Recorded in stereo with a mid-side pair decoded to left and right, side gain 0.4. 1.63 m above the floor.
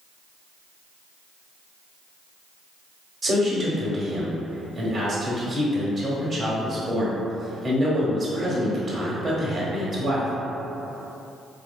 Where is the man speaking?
45° right, 1.2 m.